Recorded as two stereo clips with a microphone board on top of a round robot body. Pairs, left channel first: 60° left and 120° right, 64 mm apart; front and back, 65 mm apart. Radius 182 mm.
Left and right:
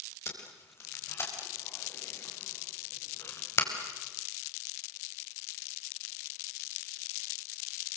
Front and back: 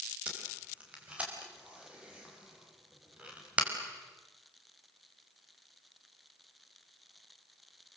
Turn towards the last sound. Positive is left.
turn(degrees=105)